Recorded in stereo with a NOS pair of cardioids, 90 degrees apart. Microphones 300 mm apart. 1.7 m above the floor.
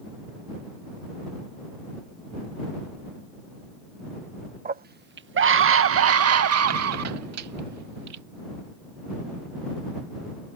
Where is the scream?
30° right; by 8.2 s 65° right.